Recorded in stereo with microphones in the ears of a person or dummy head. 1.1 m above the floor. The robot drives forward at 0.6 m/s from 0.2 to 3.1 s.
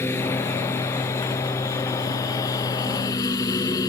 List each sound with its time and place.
0.0 s a lawn mower: 15° left (ahead or behind); by 3.9 s 20° left (ahead or behind)